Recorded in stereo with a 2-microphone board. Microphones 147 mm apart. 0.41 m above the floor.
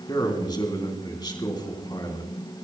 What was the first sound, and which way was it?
A man speaking, 30° left (ahead or behind).